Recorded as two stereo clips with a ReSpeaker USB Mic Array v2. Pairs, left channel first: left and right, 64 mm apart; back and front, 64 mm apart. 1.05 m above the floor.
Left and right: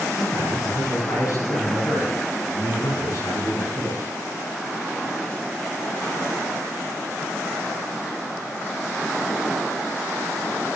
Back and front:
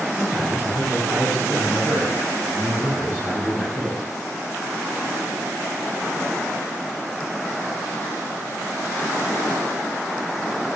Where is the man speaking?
65° left, 8.5 m.